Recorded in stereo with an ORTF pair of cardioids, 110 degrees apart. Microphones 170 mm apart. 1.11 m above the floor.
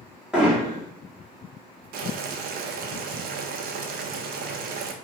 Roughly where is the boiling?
Ahead right.